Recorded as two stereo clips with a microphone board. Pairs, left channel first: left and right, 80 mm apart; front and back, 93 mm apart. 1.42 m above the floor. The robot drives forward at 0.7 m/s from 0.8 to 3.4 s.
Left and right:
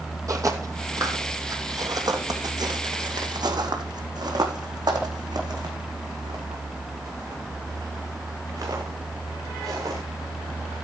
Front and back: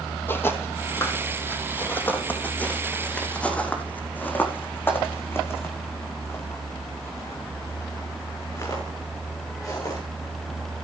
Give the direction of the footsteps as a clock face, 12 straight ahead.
2 o'clock.